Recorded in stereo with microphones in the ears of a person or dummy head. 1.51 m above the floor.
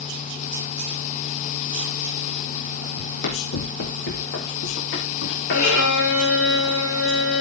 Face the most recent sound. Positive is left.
turn(degrees=80)